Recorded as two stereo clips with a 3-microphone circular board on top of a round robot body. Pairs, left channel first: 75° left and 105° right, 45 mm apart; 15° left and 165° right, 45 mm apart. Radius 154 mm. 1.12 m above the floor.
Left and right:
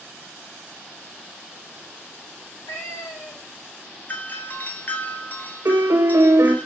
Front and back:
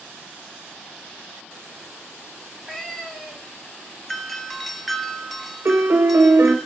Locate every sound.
2.4 s a cat meowing: 95° left, 2.5 m
4.1 s a doorbell: 100° left, 1.1 m
5.7 s a piano: 125° right, 0.9 m